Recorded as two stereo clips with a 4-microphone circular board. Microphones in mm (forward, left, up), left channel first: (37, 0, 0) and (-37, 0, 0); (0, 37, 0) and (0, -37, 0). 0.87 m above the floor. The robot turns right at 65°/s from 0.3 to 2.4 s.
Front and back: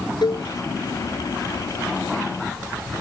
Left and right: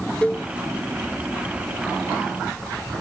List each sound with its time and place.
0.2 s a cowbell: 15° left; by 0.5 s 25° left